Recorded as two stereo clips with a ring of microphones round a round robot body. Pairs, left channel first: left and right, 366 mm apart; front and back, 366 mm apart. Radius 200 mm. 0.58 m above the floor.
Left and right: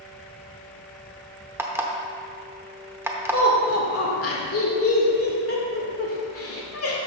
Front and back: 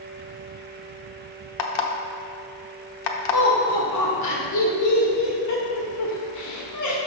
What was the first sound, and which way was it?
An alarm clock, 5° right.